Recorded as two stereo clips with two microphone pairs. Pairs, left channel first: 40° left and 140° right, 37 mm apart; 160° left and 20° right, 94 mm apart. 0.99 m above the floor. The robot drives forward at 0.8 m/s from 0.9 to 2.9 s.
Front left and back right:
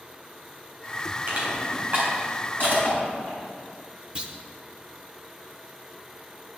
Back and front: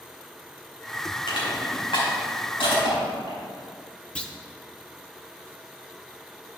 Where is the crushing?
175° right, 3.5 m.